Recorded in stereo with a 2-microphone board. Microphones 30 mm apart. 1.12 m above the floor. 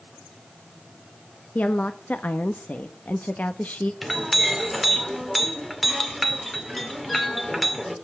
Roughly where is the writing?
I don't hear writing.